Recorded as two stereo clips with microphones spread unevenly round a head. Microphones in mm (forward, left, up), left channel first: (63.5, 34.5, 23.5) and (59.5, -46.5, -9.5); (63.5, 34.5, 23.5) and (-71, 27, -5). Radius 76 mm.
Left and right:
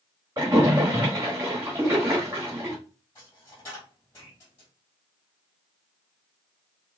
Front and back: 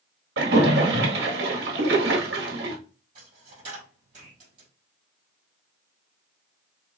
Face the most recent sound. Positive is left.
turn(degrees=150)